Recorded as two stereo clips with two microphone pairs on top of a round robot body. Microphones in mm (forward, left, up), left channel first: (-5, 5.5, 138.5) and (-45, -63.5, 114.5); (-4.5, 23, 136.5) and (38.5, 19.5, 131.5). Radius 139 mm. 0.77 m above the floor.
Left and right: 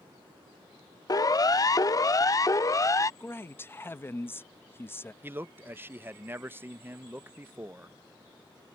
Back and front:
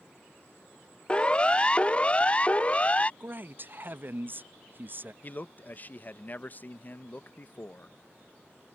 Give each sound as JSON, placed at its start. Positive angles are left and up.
{"t": 1.1, "sound": "a siren", "azimuth_deg": 105}
{"t": 3.2, "sound": "a man speaking", "azimuth_deg": -10}
{"t": 5.2, "sound": "a man speaking", "azimuth_deg": -145}